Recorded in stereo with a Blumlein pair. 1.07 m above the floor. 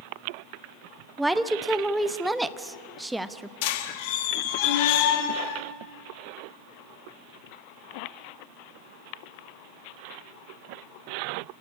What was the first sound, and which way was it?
A woman speaking, 5° right.